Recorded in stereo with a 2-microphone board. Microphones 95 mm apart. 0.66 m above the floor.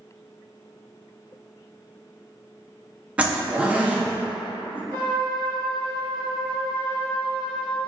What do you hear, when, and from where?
3.2 s a zipper: 15° right (ahead or behind), 0.5 m
4.9 s a trumpet: 20° left (ahead or behind), 1.1 m